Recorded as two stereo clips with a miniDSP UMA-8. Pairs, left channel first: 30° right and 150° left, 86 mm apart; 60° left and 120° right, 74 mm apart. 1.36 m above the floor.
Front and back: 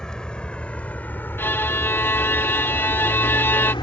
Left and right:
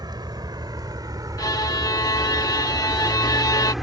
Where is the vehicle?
110° right; by 3.8 s 30° right.